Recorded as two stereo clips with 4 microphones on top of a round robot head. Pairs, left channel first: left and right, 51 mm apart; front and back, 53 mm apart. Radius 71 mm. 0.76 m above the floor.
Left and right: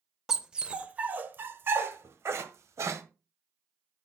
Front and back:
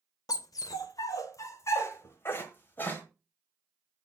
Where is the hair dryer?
No hair dryer in this recording.